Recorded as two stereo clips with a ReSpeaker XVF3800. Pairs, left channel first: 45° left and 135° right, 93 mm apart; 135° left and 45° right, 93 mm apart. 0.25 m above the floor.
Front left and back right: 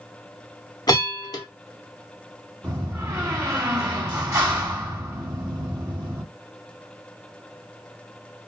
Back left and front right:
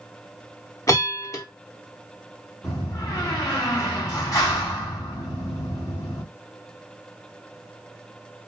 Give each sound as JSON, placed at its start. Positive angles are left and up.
{"t": 0.9, "sound": "a bell", "azimuth_deg": 85, "distance_m": 0.7}
{"t": 2.6, "sound": "a door slam", "azimuth_deg": 175, "distance_m": 1.5}